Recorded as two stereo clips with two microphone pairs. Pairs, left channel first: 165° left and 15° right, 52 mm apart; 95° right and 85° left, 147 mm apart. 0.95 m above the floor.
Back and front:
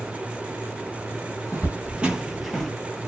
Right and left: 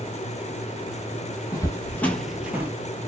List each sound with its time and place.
1.5 s footsteps: 45° right, 1.2 m; by 2.7 s 100° left, 0.9 m